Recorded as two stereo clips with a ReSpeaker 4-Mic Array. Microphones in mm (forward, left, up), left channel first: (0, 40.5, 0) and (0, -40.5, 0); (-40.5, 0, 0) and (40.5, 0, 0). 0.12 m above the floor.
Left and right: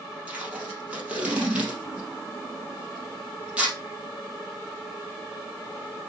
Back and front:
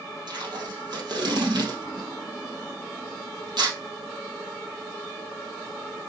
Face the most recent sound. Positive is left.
turn(degrees=-15)